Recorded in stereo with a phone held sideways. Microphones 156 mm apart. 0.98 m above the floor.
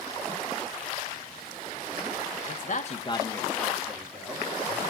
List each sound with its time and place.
2.5 s a man speaking: 50° left (ahead or behind), 0.9 m; by 4.9 s 10° right (ahead or behind), 3 m